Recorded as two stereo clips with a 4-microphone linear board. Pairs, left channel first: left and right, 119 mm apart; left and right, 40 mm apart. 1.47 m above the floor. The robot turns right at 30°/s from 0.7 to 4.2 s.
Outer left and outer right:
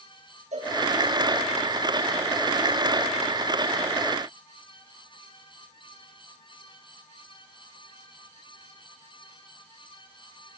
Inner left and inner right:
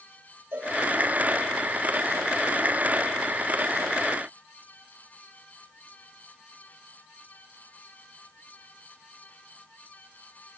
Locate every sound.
0.5 s a cowbell: 75° right (ahead or behind), 6 m; by 0.8 s 70° right (ahead or behind), 6 m